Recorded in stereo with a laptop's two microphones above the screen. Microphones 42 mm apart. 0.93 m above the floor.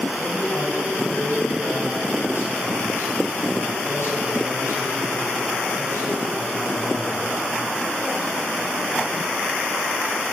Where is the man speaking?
80° left, 6.5 m.